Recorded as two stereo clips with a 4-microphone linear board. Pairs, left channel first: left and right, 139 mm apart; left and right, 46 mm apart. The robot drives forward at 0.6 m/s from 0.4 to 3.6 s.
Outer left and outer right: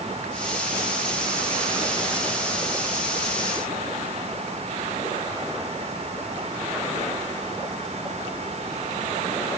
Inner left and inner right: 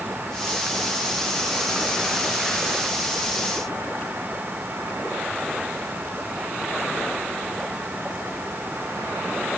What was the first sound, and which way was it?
Only background noise.